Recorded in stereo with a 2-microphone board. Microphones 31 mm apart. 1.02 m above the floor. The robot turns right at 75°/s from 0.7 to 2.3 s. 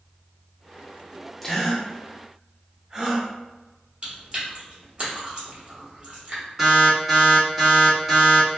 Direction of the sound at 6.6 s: 10° right (ahead or behind).